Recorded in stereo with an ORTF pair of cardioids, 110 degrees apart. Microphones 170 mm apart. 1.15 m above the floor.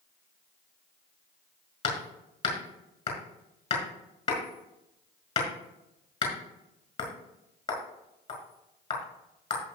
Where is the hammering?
35° left, 5.5 m.